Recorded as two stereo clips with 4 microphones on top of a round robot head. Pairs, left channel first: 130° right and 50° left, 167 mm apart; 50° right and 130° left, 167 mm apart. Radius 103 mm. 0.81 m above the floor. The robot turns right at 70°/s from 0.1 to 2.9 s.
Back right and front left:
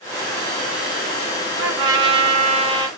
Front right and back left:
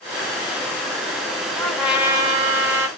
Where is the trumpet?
25° left, 0.8 m; by 2.9 s 115° left, 0.8 m.